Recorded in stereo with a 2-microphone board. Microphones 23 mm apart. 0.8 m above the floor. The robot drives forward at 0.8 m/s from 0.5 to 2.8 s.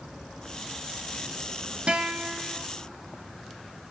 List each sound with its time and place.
1.9 s a guitar: 55° right (ahead or behind), 0.9 m; by 2.7 s 35° right (ahead or behind), 1.2 m